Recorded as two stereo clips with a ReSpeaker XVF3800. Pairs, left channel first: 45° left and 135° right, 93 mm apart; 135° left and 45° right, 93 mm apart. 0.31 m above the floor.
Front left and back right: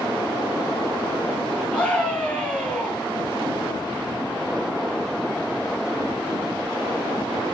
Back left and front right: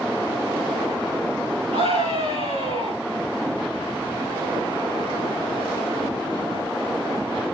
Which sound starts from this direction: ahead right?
A scream, at 1.7 s.